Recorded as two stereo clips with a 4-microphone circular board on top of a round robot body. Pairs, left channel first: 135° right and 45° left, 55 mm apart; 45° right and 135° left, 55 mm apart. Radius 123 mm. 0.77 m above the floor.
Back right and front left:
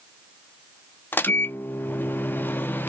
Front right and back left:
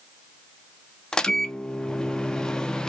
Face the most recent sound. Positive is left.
turn(degrees=-115)